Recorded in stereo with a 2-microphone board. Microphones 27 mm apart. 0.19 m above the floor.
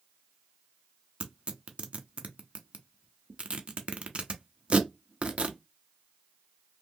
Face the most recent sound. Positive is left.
turn(degrees=-40)  # may be behind; listen again after turning